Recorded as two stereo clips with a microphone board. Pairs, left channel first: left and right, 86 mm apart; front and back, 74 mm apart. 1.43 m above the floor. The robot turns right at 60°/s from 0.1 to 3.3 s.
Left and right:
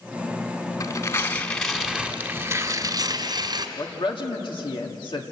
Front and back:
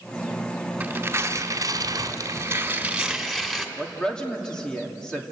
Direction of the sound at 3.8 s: 80° left.